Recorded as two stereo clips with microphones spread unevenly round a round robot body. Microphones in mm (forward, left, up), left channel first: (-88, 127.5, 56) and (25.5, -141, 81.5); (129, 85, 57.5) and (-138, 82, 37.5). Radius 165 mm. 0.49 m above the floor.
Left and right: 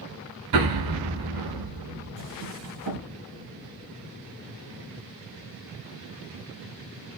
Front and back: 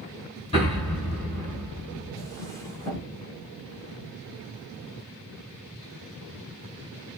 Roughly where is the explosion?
Right.